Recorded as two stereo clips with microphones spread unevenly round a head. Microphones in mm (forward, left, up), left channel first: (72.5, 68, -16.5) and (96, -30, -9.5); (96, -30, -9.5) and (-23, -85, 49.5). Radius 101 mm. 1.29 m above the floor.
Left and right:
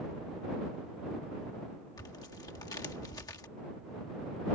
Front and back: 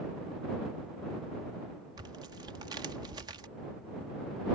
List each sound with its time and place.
2.0 s tearing paper: 165° left